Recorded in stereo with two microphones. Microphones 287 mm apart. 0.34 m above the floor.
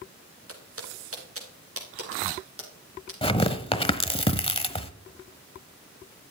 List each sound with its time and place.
0.5 s footsteps: 50° right (ahead or behind), 4.5 m
3.2 s tearing paper: 20° left (ahead or behind), 1.0 m